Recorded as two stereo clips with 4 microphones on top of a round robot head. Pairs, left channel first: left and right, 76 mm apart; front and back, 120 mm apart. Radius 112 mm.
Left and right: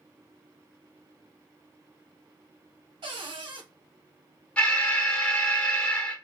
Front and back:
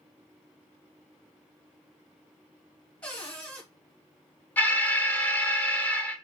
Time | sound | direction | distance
3.0 | a cupboard door | 80° right | 1.3 m
4.6 | an alarm | 40° left | 1.1 m